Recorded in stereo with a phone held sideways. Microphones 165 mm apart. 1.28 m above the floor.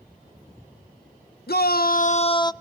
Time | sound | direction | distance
1.5 | a shout | 80° left | 0.9 m